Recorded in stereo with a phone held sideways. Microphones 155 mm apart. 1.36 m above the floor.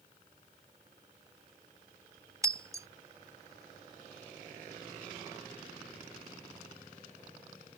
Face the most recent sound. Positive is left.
turn(degrees=-20)  # may be behind; listen again after turning